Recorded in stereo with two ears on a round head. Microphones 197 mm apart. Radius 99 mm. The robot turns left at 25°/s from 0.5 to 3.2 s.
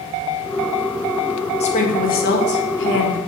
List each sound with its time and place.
1.6 s a woman speaking: 150° left, 1.5 m; by 3.2 s 110° left, 1.5 m